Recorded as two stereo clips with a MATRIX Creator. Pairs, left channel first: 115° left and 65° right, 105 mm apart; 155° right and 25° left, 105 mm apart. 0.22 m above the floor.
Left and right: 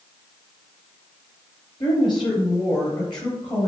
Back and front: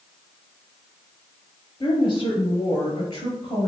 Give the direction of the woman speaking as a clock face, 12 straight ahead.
7 o'clock.